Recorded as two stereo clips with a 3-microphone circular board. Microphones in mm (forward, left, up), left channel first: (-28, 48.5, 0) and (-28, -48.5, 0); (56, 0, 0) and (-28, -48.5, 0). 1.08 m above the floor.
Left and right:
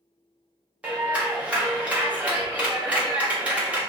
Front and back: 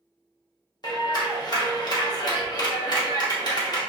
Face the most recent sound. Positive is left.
turn(degrees=-15)